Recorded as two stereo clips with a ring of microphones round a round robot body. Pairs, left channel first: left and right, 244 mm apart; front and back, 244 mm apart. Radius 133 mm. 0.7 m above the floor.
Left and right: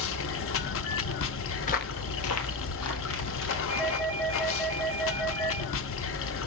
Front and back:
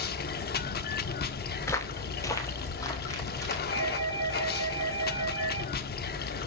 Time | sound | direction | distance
0.0 | running water | 55° left | 0.8 m
1.6 | footsteps | 65° left | 0.7 m
3.7 | a doorbell | 165° left | 3.5 m